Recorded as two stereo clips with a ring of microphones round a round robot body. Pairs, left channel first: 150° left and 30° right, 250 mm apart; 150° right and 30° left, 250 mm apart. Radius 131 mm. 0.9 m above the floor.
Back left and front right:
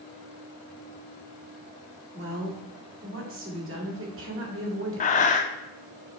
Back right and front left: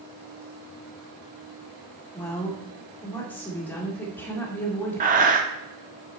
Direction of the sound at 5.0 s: 90° left.